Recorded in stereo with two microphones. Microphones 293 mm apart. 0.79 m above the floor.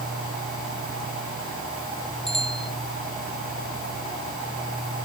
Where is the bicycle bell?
Centre (ahead or behind).